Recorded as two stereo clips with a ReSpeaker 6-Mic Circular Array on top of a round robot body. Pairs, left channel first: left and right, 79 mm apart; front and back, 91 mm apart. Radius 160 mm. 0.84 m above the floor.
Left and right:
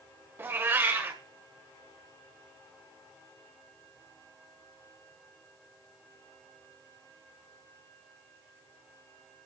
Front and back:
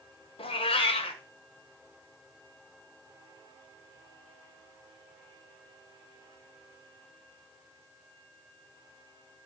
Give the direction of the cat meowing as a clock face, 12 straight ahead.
1 o'clock.